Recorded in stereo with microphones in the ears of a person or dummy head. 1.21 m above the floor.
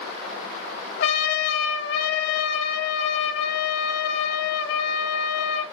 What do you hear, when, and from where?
1.0 s a trumpet: 65° left (ahead or behind), 3.5 m